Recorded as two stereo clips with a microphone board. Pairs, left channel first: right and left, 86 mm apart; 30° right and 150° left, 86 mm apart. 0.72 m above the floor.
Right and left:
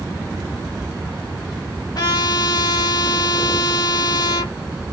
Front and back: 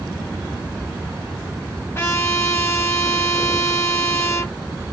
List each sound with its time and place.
1.9 s a trumpet: 80° right, 1.5 m